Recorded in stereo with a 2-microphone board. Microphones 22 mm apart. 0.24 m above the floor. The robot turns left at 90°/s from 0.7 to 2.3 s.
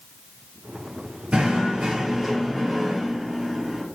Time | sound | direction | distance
1.3 | knocking | 75° right | 3.5 m